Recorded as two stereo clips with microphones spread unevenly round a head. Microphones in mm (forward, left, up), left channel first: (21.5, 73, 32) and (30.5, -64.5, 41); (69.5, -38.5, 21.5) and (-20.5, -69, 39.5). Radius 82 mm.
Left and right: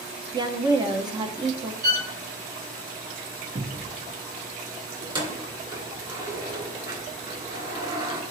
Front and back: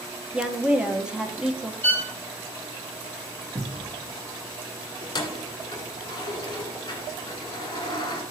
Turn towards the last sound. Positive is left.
turn(degrees=-30)